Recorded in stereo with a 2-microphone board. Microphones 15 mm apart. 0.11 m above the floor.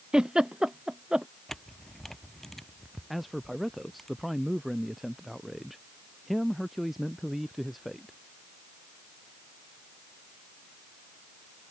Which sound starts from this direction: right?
A giggle, at 0.1 s.